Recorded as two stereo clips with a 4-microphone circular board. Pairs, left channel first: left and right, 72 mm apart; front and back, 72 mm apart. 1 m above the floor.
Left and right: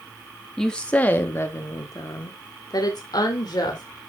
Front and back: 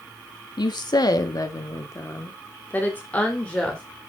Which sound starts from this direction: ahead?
A woman speaking, at 0.6 s.